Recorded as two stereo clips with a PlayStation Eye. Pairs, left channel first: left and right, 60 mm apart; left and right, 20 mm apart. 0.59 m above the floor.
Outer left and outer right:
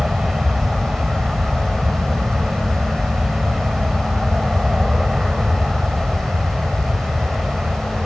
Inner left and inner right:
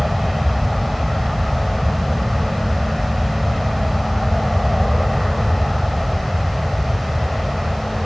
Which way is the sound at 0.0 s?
10° right (ahead or behind).